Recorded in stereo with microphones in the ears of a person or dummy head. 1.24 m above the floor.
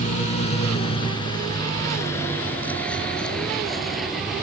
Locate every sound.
0.0 s a vehicle: 45° left (ahead or behind); by 4.4 s centre (ahead or behind)